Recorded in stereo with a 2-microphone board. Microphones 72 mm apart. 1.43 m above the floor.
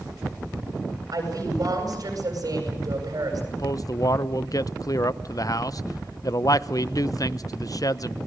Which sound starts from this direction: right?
A woman speaking, at 1.1 s.